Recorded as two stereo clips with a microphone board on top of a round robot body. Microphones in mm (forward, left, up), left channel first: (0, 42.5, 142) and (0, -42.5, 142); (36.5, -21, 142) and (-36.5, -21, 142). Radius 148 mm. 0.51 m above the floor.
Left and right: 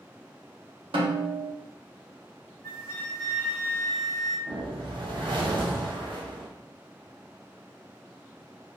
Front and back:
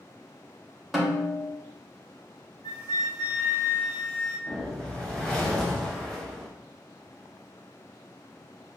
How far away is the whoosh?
About 1.2 m.